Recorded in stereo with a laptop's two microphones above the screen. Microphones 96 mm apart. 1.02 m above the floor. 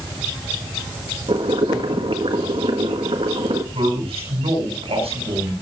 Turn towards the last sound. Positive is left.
turn(degrees=-85)